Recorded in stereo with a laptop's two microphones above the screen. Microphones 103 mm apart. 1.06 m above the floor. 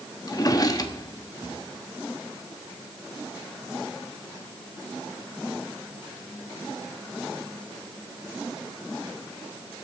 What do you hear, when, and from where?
0.3 s a drawer: 35° left (ahead or behind), 1.0 m